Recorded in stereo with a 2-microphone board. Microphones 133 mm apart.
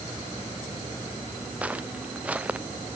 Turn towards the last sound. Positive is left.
turn(degrees=-10)  # may be behind; listen again after turning